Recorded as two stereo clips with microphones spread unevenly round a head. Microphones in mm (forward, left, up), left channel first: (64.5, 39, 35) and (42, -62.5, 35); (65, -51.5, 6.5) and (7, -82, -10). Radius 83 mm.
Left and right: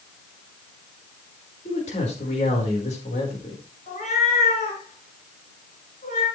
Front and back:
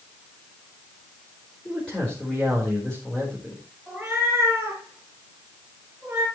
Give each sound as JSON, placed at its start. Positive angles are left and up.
{"t": 1.6, "sound": "a man speaking", "azimuth_deg": 115, "distance_m": 4.5}
{"t": 3.9, "sound": "a cat meowing", "azimuth_deg": 120, "distance_m": 3.5}